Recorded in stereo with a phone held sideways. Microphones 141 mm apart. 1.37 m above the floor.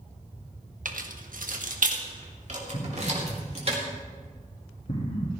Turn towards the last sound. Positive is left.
turn(degrees=45)  # may be behind; listen again after turning